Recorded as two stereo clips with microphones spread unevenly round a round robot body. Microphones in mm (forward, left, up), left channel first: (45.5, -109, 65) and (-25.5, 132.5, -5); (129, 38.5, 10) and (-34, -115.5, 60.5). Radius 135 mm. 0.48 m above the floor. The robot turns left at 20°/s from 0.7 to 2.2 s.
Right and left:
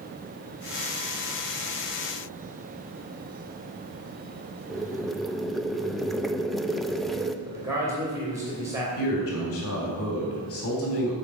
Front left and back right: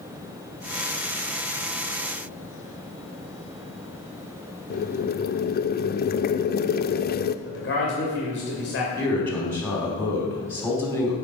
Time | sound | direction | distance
4.7 | boiling | 30° left | 0.6 m
7.5 | a man speaking | 40° left | 2.5 m
9.0 | a man speaking | 35° right | 3.5 m